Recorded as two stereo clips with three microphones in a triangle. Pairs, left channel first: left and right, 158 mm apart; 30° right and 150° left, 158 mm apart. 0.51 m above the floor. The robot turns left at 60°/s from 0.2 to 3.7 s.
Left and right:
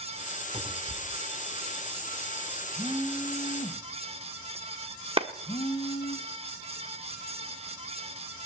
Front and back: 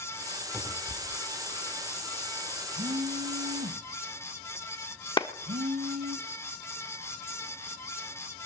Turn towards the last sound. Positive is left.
turn(degrees=-70)